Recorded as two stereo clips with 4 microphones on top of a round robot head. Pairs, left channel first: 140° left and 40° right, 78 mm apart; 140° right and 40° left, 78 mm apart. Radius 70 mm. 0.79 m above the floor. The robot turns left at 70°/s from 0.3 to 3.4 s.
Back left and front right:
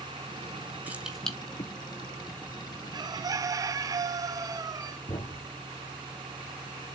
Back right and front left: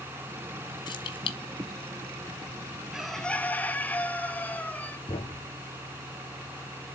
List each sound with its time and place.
0.9 s keys jangling: 110° right, 1.6 m; by 1.4 s 145° right, 1.6 m
2.9 s a bird: 40° right, 1.0 m; by 5.0 s 75° right, 1.0 m
5.1 s a thud: 175° right, 1.9 m